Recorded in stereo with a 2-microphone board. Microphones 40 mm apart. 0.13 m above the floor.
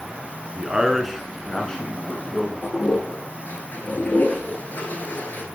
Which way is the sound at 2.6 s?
55° left (ahead or behind).